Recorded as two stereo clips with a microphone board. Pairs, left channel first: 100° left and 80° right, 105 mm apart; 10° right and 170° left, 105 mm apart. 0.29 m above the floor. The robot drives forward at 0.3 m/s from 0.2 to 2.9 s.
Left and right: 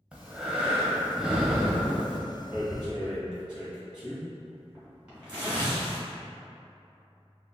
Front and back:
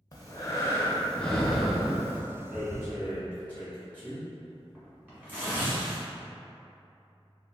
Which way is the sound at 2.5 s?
140° right.